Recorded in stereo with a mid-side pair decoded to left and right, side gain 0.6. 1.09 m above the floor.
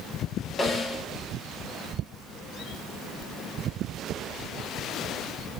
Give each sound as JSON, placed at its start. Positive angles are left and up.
{"t": 0.6, "sound": "a snare drum", "azimuth_deg": 25, "distance_m": 1.8}